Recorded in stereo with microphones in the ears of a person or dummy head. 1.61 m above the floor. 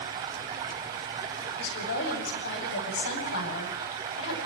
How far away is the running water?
About 1.5 m.